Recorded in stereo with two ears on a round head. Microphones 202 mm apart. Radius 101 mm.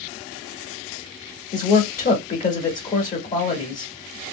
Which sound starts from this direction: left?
A man speaking, at 1.5 s.